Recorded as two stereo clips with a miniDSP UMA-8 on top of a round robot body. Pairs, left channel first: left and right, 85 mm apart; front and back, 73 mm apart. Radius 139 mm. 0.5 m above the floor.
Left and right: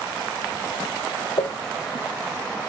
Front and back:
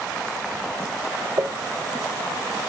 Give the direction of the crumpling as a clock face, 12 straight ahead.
7 o'clock.